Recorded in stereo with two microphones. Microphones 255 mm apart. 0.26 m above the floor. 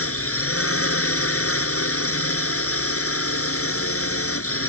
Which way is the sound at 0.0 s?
65° left (ahead or behind).